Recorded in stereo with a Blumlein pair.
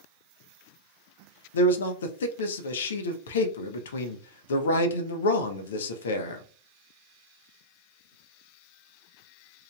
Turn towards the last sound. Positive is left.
turn(degrees=65)